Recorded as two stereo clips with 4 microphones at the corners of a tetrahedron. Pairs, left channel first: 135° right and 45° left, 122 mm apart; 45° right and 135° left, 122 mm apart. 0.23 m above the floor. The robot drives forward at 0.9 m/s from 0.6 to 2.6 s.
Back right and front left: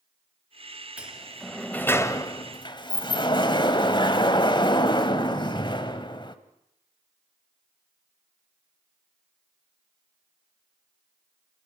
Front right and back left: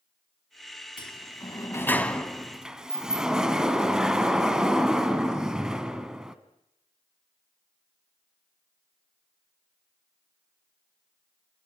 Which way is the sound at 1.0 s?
30° right.